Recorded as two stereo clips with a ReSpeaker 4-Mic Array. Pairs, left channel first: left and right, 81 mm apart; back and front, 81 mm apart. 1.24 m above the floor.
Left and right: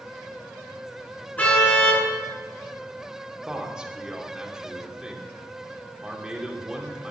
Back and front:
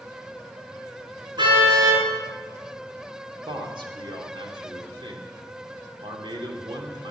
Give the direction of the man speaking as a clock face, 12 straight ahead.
12 o'clock.